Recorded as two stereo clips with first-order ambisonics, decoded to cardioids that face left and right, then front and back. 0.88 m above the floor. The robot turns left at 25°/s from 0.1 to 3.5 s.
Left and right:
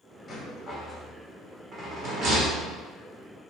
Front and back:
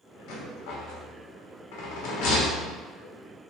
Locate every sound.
0.3 s a rattle: 15° left, 0.6 m; by 2.8 s 45° right, 0.6 m